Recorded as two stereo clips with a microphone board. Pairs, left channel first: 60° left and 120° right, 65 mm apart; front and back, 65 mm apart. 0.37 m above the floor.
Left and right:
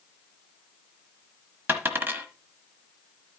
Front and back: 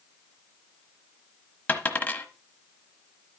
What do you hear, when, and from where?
1.7 s a dropped coin: 65° right, 1.1 m